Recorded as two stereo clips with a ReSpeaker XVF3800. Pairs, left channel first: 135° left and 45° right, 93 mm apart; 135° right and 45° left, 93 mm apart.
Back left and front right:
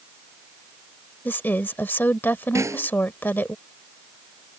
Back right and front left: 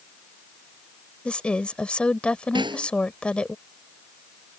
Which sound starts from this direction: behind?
A woman speaking, at 1.2 s.